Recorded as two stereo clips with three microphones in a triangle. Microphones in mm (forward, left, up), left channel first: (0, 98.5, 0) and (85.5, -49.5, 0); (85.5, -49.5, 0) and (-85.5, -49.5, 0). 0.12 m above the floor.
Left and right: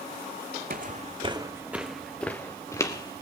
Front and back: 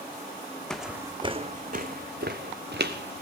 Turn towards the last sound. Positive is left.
turn(degrees=-175)